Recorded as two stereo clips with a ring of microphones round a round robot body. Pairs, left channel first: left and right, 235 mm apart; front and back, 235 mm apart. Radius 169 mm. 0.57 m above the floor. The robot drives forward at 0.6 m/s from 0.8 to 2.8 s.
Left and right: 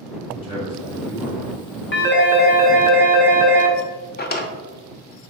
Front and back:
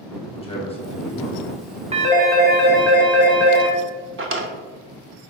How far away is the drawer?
About 0.7 m.